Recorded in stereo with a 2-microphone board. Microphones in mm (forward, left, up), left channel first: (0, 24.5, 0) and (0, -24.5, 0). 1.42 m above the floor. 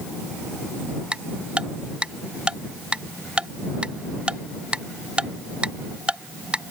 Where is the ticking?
20° right (ahead or behind).